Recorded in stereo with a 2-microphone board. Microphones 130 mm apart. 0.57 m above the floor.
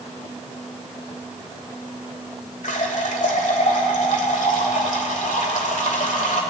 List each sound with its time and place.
2.6 s a running tap: 75° left (ahead or behind), 1.4 m